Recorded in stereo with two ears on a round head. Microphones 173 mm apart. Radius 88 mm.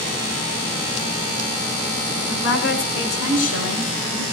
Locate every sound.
2.2 s a woman speaking: 70° left (ahead or behind), 8 m; by 4.2 s 75° left (ahead or behind), 10.5 m